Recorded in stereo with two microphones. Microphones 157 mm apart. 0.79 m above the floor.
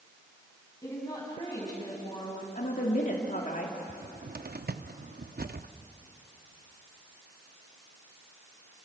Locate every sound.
0.8 s a woman speaking: 20° left (ahead or behind), 7 m; by 2.5 s 30° left (ahead or behind), 6.5 m
2.5 s a woman speaking: 60° left (ahead or behind), 2 m
3.9 s a cupboard door: 80° right, 0.7 m